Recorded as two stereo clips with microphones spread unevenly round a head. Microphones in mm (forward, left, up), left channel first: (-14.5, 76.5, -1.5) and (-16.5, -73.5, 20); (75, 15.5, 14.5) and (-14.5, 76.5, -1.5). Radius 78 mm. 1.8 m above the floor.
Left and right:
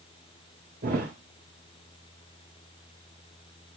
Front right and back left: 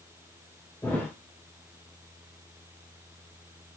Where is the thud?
110° right, 3 m.